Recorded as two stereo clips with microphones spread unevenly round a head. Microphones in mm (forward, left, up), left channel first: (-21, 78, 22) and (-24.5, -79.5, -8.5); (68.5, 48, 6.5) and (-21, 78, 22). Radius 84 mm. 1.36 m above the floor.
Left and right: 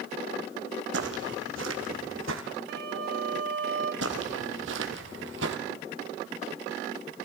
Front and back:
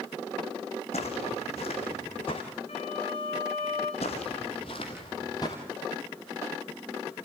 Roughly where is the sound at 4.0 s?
Right.